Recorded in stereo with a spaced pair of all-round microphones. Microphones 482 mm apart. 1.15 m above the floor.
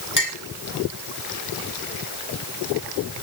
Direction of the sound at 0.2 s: 40° left (ahead or behind).